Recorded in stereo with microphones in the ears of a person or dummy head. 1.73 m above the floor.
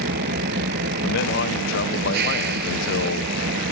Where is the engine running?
55° right (ahead or behind).